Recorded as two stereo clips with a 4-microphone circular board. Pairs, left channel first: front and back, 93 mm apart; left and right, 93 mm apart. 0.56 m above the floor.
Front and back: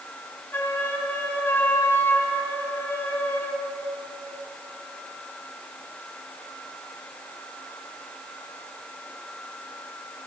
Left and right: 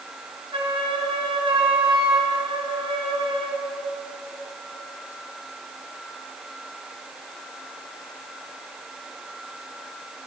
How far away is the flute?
About 2 m.